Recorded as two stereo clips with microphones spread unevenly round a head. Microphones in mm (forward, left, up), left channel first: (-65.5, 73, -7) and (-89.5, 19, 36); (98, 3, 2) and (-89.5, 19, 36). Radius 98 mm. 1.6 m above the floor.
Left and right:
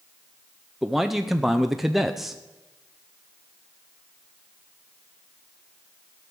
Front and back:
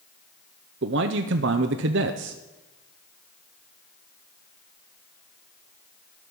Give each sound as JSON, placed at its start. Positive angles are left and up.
{"t": 0.8, "sound": "a man speaking", "azimuth_deg": 180, "distance_m": 0.6}